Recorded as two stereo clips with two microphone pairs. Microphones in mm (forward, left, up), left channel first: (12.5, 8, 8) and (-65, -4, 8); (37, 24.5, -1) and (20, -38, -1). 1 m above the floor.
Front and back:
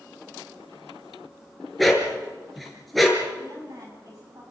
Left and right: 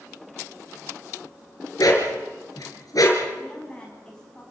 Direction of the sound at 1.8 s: 100° left.